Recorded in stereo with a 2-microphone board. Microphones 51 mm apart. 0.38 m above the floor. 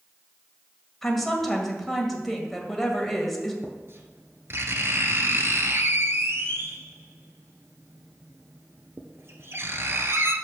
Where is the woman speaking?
5° left (ahead or behind), 1.8 m.